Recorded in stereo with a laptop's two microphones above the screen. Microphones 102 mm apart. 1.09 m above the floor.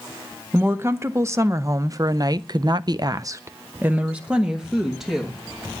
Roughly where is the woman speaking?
Right.